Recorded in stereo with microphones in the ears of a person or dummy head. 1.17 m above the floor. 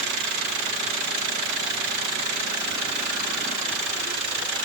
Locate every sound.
Only background noise.